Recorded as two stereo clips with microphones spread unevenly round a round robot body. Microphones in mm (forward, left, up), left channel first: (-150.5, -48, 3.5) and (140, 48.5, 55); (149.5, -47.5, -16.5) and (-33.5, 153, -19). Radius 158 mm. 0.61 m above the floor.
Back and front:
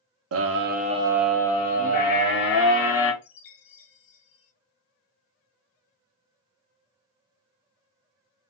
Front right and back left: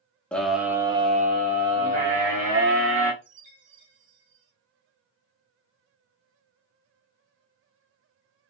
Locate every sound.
0.3 s a scream: 35° left, 0.7 m; by 3.1 s 175° left, 1.2 m
3.2 s a chime: 175° left, 0.8 m